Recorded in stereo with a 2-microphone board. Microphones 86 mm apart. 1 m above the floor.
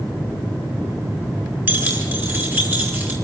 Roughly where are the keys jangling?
Right.